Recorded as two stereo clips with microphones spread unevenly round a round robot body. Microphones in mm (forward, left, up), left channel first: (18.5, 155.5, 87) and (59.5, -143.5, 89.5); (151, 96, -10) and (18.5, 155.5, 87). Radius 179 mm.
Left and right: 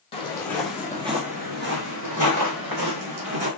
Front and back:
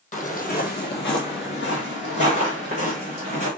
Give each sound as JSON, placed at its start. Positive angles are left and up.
{"t": 0.1, "sound": "footsteps", "azimuth_deg": 25, "distance_m": 1.7}